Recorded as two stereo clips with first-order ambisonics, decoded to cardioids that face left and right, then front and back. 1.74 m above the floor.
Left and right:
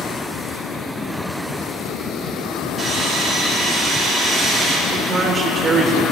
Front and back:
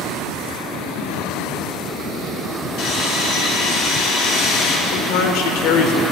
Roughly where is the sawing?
Ahead.